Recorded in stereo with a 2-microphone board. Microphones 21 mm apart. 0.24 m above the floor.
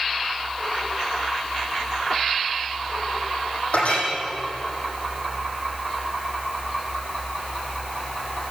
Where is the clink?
80° left, 7.5 m.